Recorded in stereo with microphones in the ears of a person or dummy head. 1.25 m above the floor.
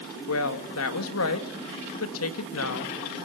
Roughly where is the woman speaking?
Left.